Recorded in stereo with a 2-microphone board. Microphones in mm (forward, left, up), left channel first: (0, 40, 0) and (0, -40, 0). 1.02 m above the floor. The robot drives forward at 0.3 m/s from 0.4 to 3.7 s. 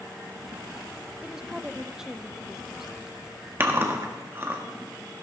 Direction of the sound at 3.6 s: 30° right (ahead or behind).